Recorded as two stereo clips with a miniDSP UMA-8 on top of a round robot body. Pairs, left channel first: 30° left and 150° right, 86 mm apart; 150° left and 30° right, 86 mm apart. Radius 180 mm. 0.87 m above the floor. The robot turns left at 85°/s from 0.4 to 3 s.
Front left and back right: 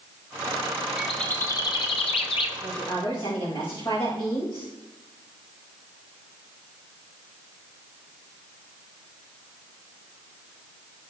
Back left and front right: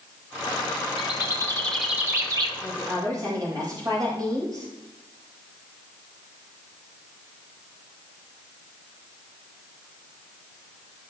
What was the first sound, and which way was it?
A bird, 130° left.